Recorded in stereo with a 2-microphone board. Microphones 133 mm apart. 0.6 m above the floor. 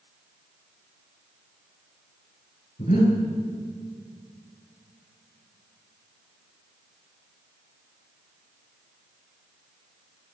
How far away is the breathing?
About 6.5 m.